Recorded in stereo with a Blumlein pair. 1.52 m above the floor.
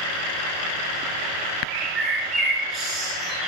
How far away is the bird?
About 6.5 m.